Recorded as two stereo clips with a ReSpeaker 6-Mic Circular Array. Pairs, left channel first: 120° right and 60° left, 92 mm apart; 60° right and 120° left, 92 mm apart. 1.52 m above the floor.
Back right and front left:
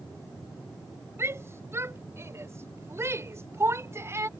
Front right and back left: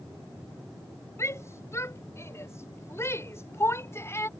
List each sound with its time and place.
1.2 s a shout: straight ahead; by 4.3 s 5° left